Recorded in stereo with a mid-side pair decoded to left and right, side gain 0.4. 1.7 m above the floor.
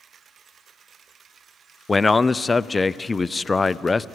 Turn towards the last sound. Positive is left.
turn(degrees=25)